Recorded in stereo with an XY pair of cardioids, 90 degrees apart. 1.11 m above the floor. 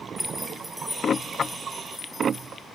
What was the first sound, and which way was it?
Keys jangling, 5° right.